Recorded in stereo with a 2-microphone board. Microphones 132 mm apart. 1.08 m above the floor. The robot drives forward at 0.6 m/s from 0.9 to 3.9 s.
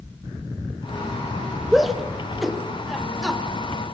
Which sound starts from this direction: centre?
A shout, at 1.7 s.